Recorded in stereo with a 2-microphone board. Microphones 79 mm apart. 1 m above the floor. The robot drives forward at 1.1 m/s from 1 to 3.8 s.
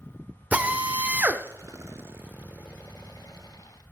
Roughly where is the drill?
Centre.